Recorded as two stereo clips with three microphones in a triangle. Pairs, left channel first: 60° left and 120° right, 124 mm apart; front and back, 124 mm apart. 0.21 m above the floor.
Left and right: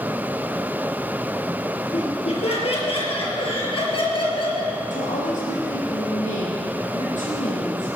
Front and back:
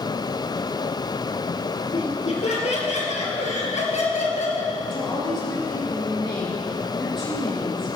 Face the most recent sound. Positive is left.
turn(degrees=50)